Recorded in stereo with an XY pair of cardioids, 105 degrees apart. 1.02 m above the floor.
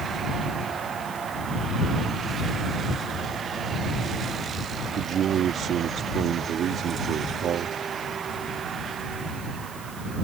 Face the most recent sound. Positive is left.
turn(degrees=-65)